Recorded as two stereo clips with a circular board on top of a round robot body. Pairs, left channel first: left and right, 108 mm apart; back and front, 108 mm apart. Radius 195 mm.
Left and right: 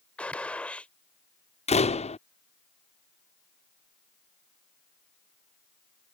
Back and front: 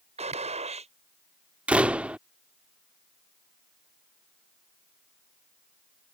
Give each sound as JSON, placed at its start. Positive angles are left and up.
{"t": 0.2, "sound": "a gunshot", "azimuth_deg": 10}
{"t": 1.7, "sound": "a door slam", "azimuth_deg": 80}